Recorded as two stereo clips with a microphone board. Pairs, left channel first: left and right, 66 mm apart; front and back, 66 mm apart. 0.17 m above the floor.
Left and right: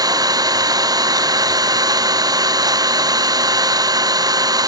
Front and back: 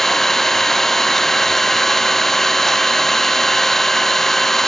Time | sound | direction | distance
0.0 | an engine running | 85° right | ?